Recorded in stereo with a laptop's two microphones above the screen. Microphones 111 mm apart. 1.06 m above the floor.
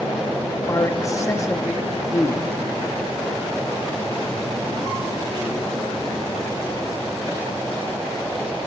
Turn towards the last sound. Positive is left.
turn(degrees=30)  # may be behind; listen again after turning